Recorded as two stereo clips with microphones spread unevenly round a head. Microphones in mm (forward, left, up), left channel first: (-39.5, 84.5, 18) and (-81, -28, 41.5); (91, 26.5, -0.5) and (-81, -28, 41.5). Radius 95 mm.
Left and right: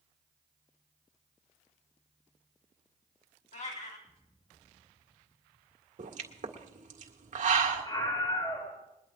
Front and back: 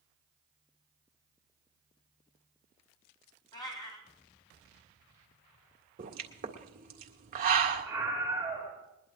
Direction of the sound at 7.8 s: 120° left.